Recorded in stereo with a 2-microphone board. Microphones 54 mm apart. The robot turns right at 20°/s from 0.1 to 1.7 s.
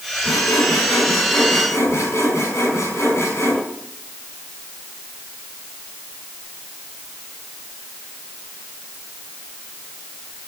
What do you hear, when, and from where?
0.2 s sawing: 85° left, 5 m; by 3.6 s 60° left (ahead or behind), 5 m